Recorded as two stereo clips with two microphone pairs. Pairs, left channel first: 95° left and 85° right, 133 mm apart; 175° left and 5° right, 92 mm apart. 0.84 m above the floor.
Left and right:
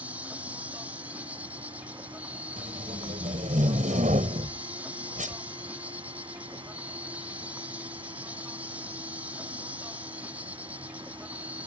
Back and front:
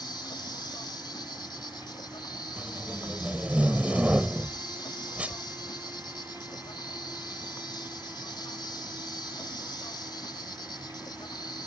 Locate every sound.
0.0 s an insect: 160° right
2.6 s tape being pulled: 80° right